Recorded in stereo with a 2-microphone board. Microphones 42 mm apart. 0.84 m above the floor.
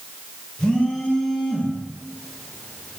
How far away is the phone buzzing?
About 0.8 m.